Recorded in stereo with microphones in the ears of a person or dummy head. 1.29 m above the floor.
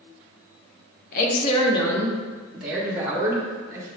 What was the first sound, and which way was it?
A woman speaking, 50° left (ahead or behind).